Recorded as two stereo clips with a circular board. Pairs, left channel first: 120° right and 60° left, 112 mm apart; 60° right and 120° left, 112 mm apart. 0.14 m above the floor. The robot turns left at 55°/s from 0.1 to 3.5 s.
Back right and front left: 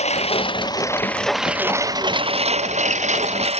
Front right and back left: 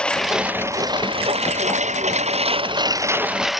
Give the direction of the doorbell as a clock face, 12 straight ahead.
I don't hear a doorbell.